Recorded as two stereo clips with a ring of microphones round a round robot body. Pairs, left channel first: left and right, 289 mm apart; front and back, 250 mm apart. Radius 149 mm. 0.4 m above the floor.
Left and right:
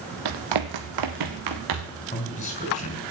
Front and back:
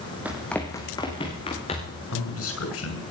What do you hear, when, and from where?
0.2 s running footsteps: 95° right, 1.1 m; by 2.0 s 70° right, 3 m
2.1 s a man speaking: 25° left, 6 m